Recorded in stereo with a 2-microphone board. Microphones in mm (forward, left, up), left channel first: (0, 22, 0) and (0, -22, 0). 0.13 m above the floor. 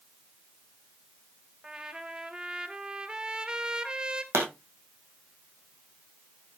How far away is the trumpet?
About 0.9 m.